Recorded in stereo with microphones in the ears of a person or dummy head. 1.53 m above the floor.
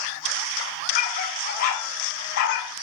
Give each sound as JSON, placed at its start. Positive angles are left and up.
{"t": 0.9, "sound": "a dog barking", "side_deg": 45, "distance_m": 2.5}